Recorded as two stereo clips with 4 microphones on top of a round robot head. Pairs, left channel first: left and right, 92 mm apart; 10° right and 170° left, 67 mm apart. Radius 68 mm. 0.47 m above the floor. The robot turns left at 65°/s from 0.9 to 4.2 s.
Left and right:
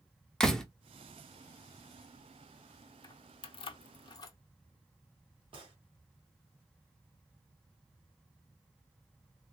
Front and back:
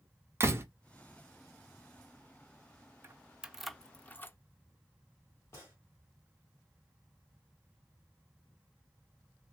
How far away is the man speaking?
No man speaking in this recording.